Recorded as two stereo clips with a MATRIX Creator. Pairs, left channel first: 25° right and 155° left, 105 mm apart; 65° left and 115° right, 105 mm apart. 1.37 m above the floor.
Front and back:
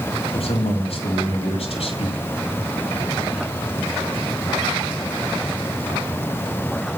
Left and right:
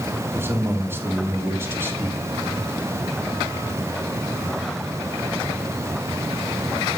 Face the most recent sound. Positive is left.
turn(degrees=-45)